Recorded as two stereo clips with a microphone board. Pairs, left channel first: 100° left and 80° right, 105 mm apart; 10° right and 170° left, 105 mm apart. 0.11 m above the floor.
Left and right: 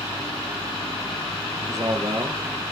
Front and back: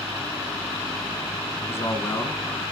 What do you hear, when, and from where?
1.7 s a man speaking: 55° right, 2 m